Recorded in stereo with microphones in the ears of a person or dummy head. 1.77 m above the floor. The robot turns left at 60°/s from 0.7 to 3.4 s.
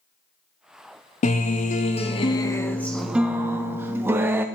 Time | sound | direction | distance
1.2 | a guitar | 105° left | 0.6 m